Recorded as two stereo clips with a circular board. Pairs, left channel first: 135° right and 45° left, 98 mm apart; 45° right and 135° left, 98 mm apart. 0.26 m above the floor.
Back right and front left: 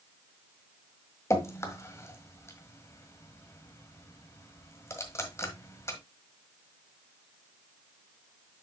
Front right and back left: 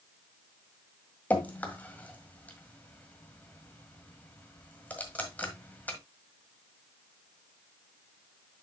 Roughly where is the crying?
No crying in this recording.